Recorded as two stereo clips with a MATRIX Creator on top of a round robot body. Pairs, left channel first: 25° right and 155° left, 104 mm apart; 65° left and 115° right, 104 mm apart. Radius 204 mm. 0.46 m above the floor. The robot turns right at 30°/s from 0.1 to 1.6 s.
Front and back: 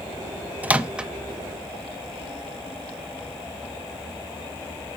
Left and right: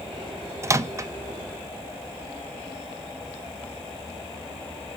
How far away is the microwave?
About 0.6 m.